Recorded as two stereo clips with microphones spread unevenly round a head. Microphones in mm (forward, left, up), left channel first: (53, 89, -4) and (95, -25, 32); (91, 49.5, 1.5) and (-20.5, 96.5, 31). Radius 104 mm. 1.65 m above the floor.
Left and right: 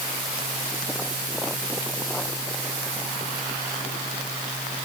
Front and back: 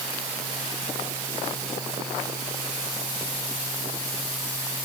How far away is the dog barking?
I don't hear a dog barking.